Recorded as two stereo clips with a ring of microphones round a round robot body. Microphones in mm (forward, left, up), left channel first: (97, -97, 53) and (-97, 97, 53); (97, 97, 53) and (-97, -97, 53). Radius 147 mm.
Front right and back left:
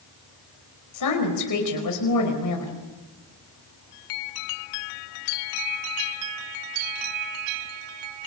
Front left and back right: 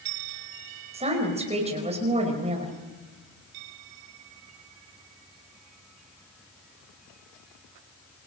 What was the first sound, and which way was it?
A woman speaking, 65° right.